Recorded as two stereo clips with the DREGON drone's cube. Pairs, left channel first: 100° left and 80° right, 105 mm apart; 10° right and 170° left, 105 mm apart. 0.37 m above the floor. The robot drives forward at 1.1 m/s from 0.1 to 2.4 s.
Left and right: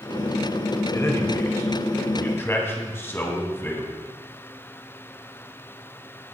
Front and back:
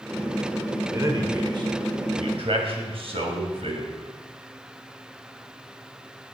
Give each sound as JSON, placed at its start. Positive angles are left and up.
{"t": 0.9, "sound": "a man speaking", "azimuth_deg": 135, "distance_m": 1.5}